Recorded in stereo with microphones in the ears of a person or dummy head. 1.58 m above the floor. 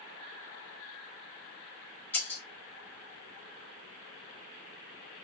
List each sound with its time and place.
2.1 s breaking glass: 10° left (ahead or behind), 1.6 m